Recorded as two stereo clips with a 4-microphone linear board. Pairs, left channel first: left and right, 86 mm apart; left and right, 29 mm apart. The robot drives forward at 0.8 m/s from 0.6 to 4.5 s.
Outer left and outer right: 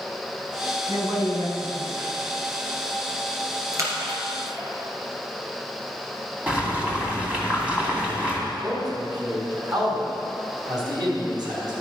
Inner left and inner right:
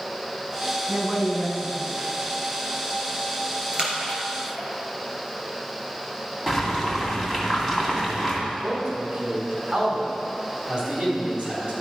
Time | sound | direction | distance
0.9 | a woman speaking | 50° right (ahead or behind) | 4 m
3.7 | a splash | 40° right (ahead or behind) | 3 m
6.5 | boiling | 15° right (ahead or behind) | 2.5 m
8.5 | a man speaking | 55° right (ahead or behind) | 4 m